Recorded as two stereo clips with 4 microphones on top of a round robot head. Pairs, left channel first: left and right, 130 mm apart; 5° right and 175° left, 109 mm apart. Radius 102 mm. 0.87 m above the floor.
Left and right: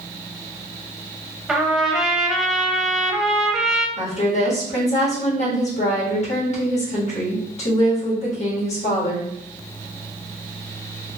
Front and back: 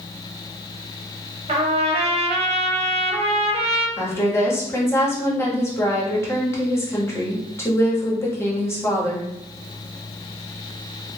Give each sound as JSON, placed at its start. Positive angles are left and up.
{"t": 1.5, "sound": "a trumpet", "azimuth_deg": 180, "distance_m": 0.9}
{"t": 4.0, "sound": "a woman speaking", "azimuth_deg": 60, "distance_m": 1.4}